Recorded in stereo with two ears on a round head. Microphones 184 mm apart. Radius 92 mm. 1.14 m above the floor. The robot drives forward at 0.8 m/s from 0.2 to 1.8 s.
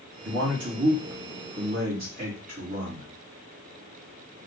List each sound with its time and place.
0.2 s a man speaking: 65° right (ahead or behind), 2.5 m; by 3.1 s 45° right (ahead or behind), 3 m